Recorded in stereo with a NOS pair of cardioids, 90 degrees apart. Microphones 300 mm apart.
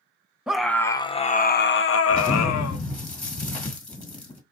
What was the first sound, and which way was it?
A scream, 5° right.